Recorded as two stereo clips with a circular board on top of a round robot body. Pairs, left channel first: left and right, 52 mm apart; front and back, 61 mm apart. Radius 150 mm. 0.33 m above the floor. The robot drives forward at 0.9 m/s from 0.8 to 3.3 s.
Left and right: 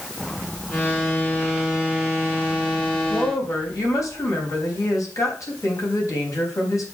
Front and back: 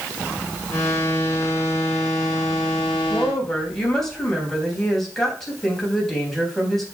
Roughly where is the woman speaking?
Left.